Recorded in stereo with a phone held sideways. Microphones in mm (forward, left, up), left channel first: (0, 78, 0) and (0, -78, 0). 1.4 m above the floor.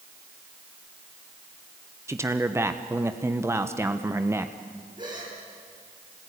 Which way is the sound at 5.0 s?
30° right (ahead or behind).